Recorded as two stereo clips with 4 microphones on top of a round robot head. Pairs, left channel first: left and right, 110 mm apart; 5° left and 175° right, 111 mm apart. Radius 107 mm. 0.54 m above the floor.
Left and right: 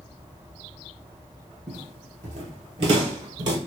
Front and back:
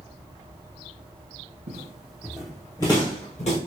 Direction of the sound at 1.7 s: 140° right.